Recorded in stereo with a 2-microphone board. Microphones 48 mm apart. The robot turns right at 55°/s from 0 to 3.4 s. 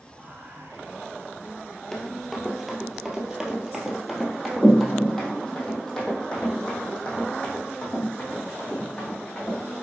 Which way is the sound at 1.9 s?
5° left (ahead or behind).